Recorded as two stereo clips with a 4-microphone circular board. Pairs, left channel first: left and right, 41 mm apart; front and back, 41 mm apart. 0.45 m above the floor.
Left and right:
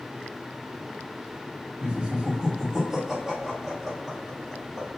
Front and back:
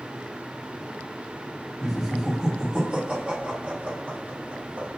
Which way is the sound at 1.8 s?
100° right.